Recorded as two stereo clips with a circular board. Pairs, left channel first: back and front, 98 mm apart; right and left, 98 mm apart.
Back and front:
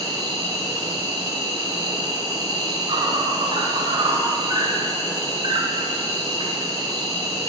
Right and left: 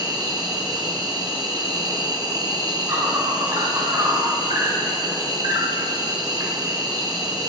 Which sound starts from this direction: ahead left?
An insect, at 0.0 s.